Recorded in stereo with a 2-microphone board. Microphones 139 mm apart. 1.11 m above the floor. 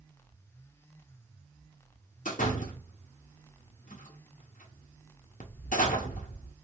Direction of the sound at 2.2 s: 65° left (ahead or behind).